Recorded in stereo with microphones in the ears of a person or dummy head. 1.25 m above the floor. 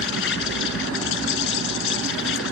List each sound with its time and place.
0.0 s an insect: 75° left (ahead or behind)